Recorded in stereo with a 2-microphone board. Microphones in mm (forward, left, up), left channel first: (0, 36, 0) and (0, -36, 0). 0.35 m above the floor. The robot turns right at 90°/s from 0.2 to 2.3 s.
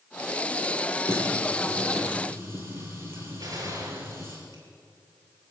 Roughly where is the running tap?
Left.